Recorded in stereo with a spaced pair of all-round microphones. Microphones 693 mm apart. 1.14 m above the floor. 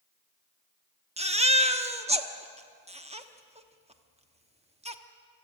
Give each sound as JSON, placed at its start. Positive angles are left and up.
{"t": 1.2, "sound": "a baby crying", "side_deg": -10, "distance_m": 1.0}